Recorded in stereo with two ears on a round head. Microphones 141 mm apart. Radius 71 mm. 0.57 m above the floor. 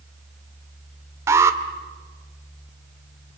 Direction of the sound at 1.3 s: 15° right (ahead or behind).